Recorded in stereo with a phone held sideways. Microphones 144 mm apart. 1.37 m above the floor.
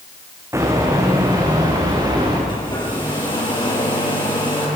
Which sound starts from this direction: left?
A hair dryer, at 2.5 s.